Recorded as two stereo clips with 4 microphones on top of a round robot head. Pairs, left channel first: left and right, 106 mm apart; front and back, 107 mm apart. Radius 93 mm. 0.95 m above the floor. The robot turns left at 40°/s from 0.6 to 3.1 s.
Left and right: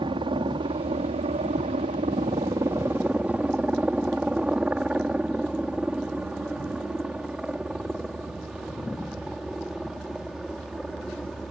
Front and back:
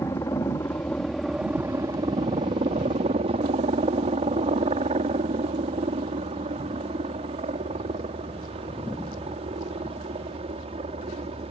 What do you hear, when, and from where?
0.0 s a helicopter: 65° right; by 11.5 s straight behind